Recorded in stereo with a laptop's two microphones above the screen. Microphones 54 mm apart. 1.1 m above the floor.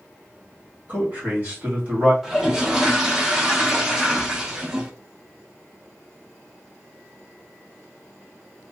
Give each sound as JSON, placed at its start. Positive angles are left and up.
{"t": 0.9, "sound": "a man speaking", "side_deg": -35, "distance_m": 1.9}
{"t": 2.2, "sound": "a toilet flushing", "side_deg": -10, "distance_m": 0.7}